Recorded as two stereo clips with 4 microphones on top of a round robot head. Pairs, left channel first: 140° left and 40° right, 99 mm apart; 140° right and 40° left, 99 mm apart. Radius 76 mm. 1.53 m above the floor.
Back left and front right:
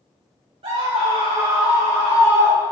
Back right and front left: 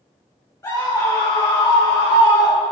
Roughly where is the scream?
Right.